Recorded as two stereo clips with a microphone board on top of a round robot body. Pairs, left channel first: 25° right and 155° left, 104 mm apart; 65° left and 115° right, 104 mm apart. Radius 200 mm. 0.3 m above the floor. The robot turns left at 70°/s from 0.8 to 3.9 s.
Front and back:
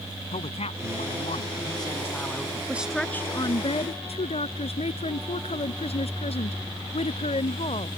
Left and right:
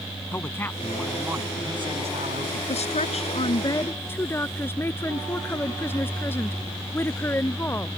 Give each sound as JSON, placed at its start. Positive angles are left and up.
{"t": 0.3, "sound": "a man speaking", "azimuth_deg": -5}
{"t": 2.7, "sound": "a woman speaking", "azimuth_deg": 85}